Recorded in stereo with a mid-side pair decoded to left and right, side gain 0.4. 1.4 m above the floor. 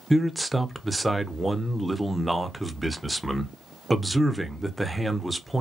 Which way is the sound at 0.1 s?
10° right.